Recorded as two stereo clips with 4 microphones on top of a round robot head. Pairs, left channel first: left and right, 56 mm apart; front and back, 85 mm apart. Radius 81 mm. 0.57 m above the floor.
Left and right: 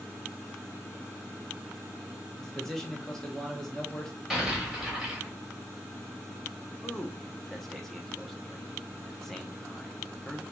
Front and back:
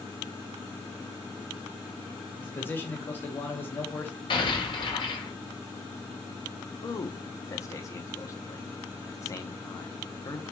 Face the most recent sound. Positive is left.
turn(degrees=10)